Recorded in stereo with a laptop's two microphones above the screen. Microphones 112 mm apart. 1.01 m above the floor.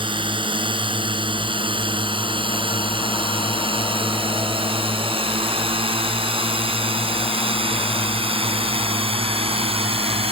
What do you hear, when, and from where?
0.0 s a drone: 50° right (ahead or behind); by 10.3 s 60° right (ahead or behind)